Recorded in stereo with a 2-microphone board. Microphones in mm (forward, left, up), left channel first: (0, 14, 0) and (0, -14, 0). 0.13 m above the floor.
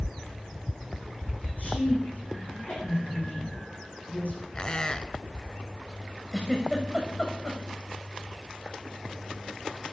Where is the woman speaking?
70° left (ahead or behind), 6 m.